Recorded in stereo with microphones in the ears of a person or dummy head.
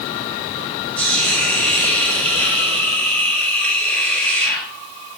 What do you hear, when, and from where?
1.0 s a hiss: 5° left (ahead or behind), 6.5 m